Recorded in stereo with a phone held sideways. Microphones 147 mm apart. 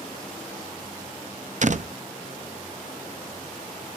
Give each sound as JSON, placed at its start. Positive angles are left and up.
{"t": 1.6, "sound": "a door slam", "side_deg": -55, "distance_m": 0.5}